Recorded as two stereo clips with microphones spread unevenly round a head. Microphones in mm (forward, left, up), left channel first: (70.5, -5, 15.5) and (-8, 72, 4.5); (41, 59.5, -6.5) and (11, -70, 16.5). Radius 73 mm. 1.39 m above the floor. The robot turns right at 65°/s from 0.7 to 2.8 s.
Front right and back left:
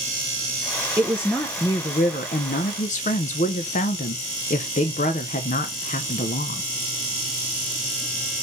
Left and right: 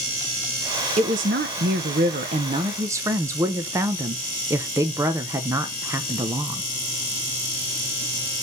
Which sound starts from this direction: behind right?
A woman speaking, at 1.0 s.